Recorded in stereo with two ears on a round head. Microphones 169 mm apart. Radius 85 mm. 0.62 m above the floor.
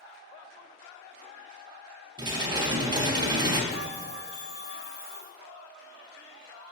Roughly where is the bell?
Centre.